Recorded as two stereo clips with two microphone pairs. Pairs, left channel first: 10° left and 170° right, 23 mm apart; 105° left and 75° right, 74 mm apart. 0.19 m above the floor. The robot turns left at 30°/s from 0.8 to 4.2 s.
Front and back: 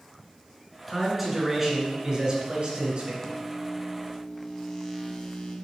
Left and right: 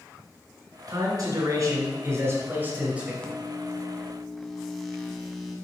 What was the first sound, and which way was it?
A man speaking, 85° right.